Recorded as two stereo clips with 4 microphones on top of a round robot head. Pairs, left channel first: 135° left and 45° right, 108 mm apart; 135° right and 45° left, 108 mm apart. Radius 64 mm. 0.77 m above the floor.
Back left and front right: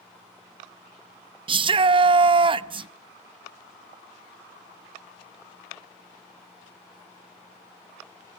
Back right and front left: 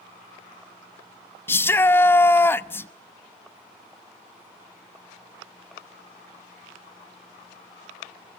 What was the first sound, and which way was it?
A shout, 70° right.